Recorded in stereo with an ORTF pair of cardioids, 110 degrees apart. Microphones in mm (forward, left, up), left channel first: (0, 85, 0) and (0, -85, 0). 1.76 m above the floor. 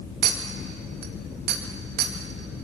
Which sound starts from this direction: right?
A clink, at 0.2 s.